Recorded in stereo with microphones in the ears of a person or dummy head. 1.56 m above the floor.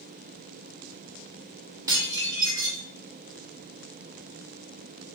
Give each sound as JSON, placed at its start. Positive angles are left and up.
{"t": 1.9, "sound": "dishes clattering", "side_deg": -20, "distance_m": 1.4}